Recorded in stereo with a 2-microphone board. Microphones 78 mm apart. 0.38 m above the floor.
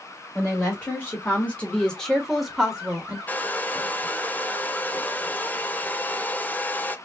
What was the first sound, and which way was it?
A woman speaking, 30° left (ahead or behind).